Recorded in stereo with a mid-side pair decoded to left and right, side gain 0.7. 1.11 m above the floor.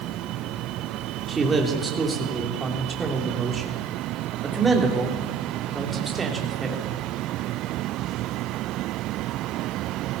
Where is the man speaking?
15° right, 2.5 m.